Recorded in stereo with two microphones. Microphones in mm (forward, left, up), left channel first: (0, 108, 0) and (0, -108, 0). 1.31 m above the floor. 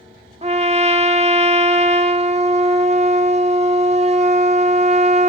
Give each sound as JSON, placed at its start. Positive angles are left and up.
{"t": 0.4, "sound": "a trumpet", "side_deg": -30, "distance_m": 1.0}